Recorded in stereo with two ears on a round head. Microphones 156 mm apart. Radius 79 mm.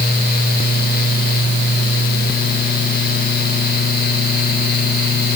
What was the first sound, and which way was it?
Only background noise.